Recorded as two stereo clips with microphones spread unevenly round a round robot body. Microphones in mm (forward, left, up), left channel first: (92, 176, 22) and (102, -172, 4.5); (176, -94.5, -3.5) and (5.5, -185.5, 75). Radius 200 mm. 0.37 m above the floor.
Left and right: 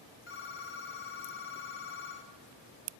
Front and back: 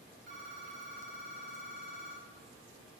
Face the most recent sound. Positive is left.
turn(degrees=150)